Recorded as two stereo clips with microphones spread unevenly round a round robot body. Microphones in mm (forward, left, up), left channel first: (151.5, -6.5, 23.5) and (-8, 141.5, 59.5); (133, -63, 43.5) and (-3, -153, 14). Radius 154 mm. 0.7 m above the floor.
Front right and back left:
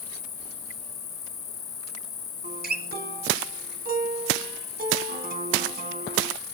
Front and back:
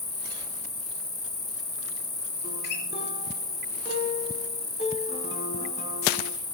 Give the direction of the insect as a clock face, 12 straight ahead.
1 o'clock.